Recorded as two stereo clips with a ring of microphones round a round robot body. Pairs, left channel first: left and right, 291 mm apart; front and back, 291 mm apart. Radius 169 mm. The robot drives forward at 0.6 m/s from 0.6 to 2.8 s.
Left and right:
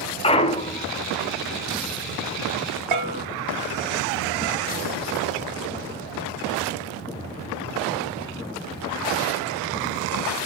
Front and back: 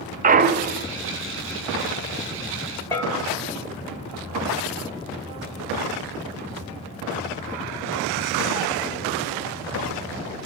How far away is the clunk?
About 0.6 m.